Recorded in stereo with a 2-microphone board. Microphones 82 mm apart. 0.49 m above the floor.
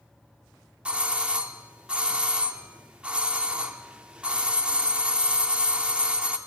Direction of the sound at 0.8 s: 15° right (ahead or behind).